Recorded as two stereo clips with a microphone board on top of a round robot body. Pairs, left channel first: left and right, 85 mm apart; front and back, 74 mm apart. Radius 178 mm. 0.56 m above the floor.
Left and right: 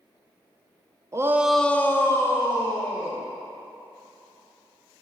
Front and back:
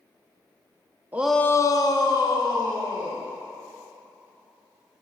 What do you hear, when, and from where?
1.1 s a shout: 125° right, 0.6 m; by 3.2 s 30° left, 2.5 m